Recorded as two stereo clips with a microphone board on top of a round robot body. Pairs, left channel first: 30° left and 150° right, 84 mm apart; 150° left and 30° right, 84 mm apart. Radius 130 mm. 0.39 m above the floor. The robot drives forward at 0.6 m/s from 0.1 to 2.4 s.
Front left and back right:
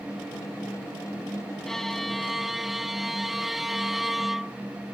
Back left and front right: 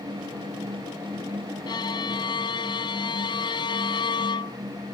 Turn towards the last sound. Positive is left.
turn(degrees=120)